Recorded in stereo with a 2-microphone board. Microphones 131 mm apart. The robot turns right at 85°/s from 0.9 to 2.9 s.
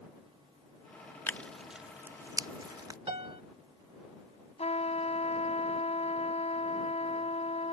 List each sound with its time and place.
1.3 s tearing paper: 15° left (ahead or behind); by 3.0 s 30° right (ahead or behind)
3.1 s a piano: 45° right (ahead or behind)
4.6 s a trumpet: 55° left (ahead or behind)